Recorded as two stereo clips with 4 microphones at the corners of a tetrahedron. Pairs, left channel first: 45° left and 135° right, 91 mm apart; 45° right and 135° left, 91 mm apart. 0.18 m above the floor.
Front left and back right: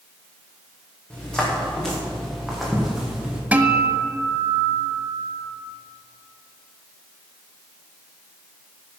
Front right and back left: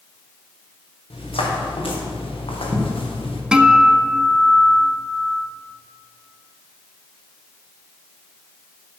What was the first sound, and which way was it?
Footsteps, 35° right.